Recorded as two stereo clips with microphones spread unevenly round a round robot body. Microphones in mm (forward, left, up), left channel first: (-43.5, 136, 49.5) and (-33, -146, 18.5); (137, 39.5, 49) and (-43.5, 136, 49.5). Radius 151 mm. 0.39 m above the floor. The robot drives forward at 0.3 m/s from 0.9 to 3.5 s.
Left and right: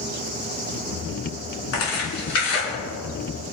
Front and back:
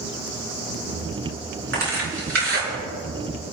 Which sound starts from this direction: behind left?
Tearing paper, at 1.7 s.